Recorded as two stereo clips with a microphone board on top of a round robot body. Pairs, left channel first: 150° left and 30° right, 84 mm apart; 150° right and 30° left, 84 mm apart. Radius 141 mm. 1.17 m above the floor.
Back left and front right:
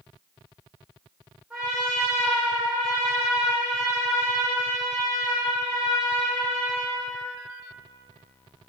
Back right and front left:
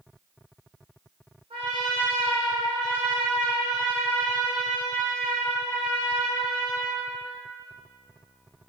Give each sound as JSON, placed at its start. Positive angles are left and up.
{"t": 1.5, "sound": "a trumpet", "azimuth_deg": 55, "distance_m": 0.7}